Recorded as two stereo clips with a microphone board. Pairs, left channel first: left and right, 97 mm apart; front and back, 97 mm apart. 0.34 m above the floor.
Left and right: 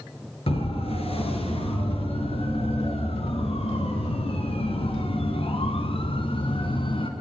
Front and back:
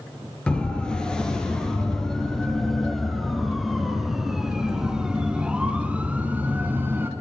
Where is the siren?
80° left, 6.5 m; by 7.1 s 115° left, 3.5 m.